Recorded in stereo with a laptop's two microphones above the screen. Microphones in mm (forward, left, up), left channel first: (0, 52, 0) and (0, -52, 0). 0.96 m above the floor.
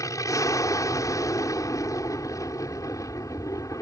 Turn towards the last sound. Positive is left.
turn(degrees=30)  # may be behind; listen again after turning